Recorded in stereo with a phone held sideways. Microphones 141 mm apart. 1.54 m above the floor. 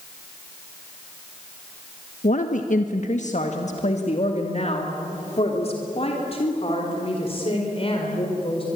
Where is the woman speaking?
65° left (ahead or behind), 1.2 m; by 8.7 s 40° left (ahead or behind), 5 m.